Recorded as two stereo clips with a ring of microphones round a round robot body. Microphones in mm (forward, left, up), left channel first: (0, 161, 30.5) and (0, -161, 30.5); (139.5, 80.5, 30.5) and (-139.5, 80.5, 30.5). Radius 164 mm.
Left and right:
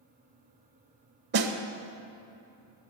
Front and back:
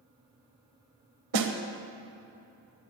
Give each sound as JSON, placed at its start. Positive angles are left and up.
{"t": 1.3, "sound": "a snare drum", "azimuth_deg": -150, "distance_m": 1.0}